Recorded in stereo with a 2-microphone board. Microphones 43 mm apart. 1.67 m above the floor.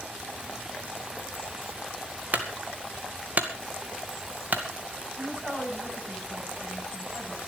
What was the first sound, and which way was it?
A clunk, 50° right (ahead or behind).